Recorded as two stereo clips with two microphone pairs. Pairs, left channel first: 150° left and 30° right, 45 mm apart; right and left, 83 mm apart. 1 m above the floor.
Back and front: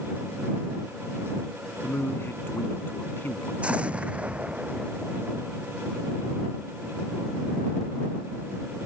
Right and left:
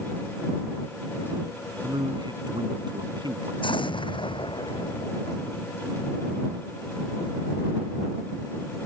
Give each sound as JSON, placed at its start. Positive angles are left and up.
{"t": 1.8, "sound": "a man speaking", "azimuth_deg": 115}
{"t": 3.6, "sound": "an explosion", "azimuth_deg": -90}